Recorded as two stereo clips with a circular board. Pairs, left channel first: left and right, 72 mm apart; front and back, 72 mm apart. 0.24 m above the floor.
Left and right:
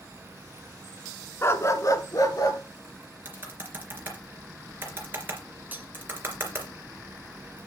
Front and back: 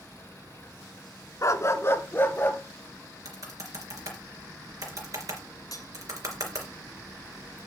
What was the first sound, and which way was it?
A dog barking, 40° left.